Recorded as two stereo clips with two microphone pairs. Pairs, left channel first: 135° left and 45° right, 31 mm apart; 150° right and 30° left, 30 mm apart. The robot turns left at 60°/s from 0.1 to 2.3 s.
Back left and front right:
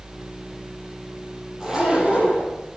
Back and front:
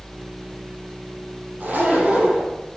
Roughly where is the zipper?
Ahead left.